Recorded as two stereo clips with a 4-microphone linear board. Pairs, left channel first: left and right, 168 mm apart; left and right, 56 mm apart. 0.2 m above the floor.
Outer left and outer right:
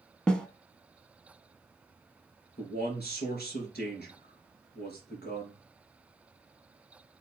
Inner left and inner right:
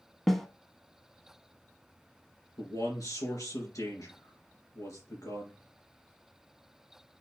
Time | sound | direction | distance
0.3 | a snare drum | 5° left (ahead or behind) | 0.7 m
2.6 | a man speaking | 65° left (ahead or behind) | 2.5 m